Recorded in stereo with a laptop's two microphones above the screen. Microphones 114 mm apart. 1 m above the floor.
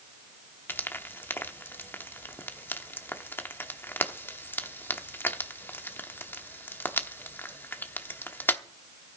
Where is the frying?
20° left (ahead or behind), 0.9 m.